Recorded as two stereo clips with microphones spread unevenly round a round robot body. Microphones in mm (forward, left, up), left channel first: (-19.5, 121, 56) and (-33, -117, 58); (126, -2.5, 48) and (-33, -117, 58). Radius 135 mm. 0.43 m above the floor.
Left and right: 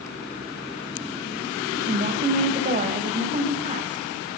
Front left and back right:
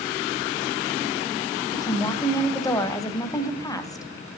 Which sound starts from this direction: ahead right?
A woman speaking, at 1.7 s.